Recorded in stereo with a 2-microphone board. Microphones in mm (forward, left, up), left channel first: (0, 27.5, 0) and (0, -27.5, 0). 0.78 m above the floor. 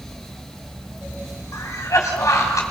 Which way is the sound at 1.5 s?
80° left.